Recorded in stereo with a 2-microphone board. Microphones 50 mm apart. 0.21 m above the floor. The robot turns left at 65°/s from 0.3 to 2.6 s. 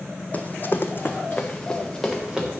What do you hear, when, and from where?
0.3 s running footsteps: 35° left (ahead or behind), 0.6 m; by 2.5 s 20° right (ahead or behind), 2 m